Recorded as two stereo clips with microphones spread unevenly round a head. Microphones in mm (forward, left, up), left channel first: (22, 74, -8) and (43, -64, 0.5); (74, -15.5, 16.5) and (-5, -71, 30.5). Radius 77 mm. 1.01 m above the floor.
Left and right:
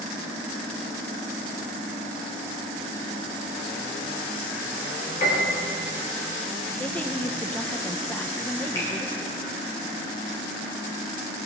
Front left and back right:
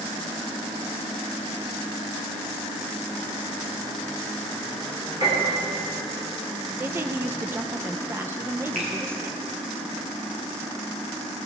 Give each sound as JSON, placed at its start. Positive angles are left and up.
{"t": 5.2, "sound": "a piano", "azimuth_deg": 150, "distance_m": 3.5}
{"t": 6.8, "sound": "a woman speaking", "azimuth_deg": 160, "distance_m": 0.7}
{"t": 8.8, "sound": "a finger snap", "azimuth_deg": 170, "distance_m": 3.0}